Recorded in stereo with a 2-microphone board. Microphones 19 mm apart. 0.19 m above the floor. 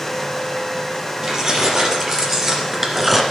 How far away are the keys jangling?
About 4.5 m.